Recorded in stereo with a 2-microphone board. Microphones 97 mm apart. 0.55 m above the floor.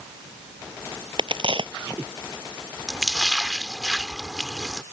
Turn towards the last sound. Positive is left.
turn(degrees=0)  # may be behind; listen again after turning